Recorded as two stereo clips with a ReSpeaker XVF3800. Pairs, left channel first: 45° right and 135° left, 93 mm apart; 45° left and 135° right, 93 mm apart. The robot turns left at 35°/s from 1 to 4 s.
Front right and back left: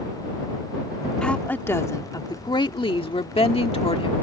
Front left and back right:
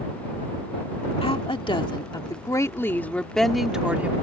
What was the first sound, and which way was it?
A woman speaking, 35° left.